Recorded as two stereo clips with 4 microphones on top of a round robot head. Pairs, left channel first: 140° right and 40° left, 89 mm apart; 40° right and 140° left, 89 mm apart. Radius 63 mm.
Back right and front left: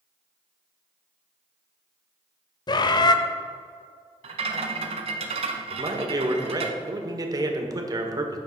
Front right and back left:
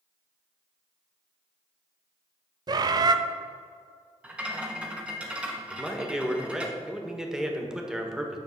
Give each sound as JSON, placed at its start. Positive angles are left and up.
{"t": 2.7, "sound": "a bird", "azimuth_deg": 180, "distance_m": 0.7}
{"t": 4.2, "sound": "a rattle", "azimuth_deg": 60, "distance_m": 1.1}
{"t": 5.7, "sound": "a man speaking", "azimuth_deg": 60, "distance_m": 1.5}